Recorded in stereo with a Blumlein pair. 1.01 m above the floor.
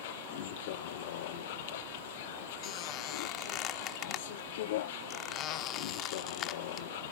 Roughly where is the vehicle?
Ahead left.